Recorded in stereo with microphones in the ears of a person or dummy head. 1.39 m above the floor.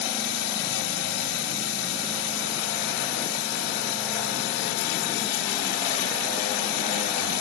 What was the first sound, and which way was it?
Running water, 65° left (ahead or behind).